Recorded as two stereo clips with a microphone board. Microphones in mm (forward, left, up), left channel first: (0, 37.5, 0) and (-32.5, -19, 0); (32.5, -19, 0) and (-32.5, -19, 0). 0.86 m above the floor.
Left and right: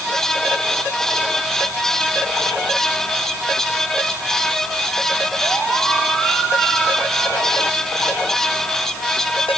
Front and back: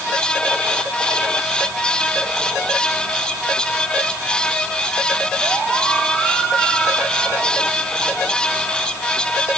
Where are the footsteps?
No footsteps in this recording.